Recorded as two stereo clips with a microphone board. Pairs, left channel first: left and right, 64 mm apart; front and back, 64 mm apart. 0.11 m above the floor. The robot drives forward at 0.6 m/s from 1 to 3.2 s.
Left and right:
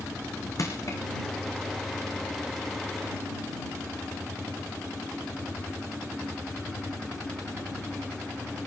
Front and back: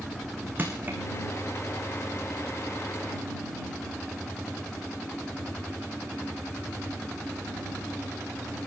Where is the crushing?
120° left, 4 m.